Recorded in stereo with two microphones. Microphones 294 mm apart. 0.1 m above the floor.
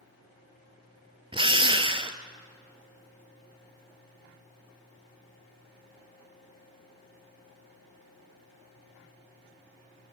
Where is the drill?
15° right (ahead or behind), 1.0 m.